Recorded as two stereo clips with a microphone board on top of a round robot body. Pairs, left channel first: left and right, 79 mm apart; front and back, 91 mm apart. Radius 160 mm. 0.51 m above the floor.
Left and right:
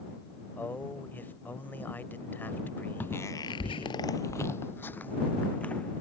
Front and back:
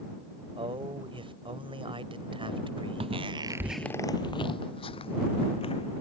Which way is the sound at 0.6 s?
160° left.